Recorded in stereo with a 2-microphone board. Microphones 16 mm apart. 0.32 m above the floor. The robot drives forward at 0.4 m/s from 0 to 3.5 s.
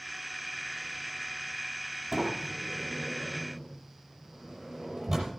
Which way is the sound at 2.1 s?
10° right (ahead or behind).